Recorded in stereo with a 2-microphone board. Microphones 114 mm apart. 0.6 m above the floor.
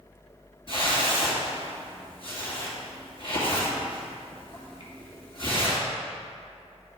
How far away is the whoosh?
About 1.8 m.